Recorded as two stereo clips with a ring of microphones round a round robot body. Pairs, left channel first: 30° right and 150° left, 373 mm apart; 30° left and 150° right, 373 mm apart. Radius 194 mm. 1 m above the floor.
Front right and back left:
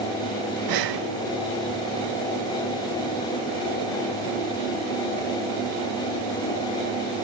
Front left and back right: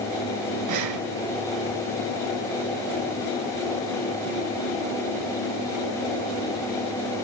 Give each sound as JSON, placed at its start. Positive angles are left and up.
{"t": 0.7, "sound": "breathing", "azimuth_deg": 175, "distance_m": 1.5}